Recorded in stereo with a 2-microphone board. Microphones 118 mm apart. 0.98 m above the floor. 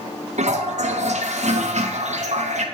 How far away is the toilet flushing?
About 0.7 m.